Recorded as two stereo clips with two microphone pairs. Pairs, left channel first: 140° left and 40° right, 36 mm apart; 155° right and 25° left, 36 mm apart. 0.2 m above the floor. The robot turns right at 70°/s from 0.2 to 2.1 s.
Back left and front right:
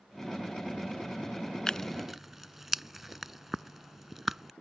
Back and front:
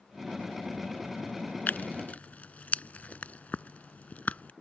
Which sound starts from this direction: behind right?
Tearing paper, at 1.7 s.